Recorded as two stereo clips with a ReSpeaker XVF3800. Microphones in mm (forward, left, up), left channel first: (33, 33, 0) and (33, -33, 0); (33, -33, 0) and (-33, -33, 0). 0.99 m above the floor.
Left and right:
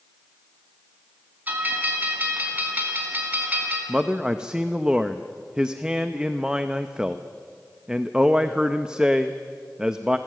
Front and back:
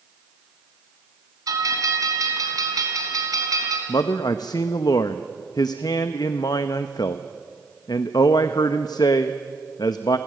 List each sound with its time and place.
1.5 s a bell: 150° right, 3 m
3.9 s a man speaking: 10° right, 0.7 m